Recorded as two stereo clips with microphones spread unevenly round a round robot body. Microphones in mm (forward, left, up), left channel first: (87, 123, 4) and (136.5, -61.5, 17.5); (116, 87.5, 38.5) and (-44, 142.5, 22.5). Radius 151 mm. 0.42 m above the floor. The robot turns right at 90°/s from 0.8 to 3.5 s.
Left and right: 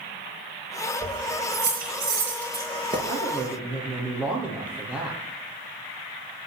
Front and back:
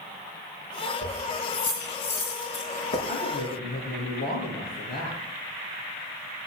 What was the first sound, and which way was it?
Keys jangling, 175° left.